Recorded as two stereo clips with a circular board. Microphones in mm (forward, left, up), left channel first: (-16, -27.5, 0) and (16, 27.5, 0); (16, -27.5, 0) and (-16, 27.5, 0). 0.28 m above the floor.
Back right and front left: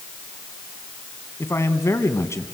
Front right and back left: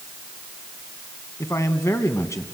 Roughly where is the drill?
No drill in this recording.